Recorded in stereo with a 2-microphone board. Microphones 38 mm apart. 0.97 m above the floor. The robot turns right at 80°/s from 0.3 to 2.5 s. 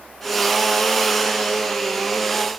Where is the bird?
No bird in this recording.